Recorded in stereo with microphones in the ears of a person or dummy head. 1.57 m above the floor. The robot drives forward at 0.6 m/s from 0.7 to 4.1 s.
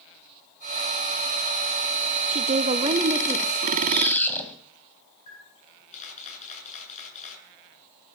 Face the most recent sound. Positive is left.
turn(degrees=45)  # may be behind; listen again after turning